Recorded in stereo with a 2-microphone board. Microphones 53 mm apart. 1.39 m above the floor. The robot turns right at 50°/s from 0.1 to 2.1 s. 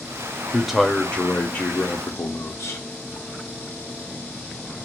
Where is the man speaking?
15° right, 0.6 m; by 2.8 s 65° left, 0.6 m.